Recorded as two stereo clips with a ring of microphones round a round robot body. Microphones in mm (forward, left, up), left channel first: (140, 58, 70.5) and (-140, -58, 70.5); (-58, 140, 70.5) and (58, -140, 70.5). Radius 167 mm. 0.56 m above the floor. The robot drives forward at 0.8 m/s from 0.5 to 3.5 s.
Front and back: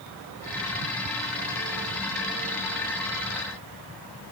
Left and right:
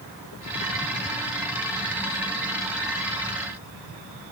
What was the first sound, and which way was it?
Only background noise.